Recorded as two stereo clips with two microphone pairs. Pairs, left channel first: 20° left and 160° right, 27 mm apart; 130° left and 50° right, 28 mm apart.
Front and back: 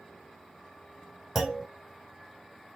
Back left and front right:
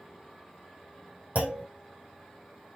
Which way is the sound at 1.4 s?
85° right.